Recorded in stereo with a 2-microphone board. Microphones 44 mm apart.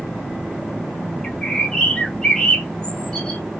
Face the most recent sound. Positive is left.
turn(degrees=20)  # may be behind; listen again after turning